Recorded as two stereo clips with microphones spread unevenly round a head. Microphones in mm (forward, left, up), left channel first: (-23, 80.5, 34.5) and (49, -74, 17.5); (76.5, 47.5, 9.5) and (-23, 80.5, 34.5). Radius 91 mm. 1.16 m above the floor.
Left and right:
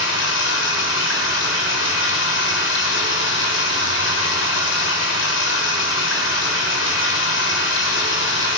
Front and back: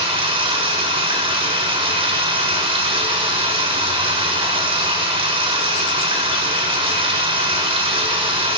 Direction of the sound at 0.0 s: 135° left.